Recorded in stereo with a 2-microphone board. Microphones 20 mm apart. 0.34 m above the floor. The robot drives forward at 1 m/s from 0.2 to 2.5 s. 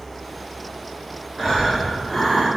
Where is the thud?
No thud in this recording.